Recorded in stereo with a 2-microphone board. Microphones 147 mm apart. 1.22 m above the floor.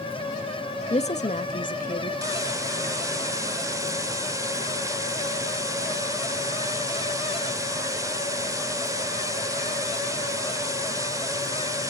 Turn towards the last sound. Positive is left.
turn(degrees=-20)  # may be behind; listen again after turning